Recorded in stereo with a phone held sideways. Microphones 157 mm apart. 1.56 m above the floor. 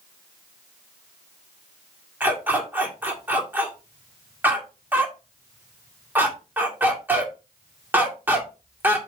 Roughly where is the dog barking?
Centre.